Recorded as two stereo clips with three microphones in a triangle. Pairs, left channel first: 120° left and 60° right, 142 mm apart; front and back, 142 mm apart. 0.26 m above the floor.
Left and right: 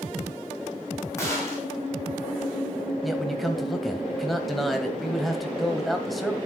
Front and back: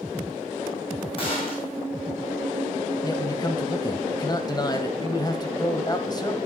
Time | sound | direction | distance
1.2 | a gunshot | 50° left | 4 m
3.0 | a man speaking | 30° left | 1.5 m